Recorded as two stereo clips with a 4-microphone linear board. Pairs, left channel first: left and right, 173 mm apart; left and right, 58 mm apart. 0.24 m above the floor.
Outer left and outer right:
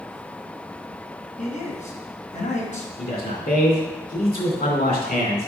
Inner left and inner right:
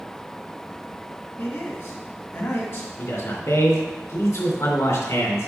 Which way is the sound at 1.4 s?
45° left (ahead or behind).